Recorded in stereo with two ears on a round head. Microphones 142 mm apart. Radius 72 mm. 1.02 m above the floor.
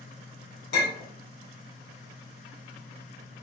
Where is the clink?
75° left (ahead or behind), 1.8 m.